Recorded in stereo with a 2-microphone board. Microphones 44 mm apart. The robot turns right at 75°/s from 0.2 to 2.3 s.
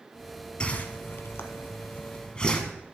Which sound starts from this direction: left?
A whoosh, at 0.6 s.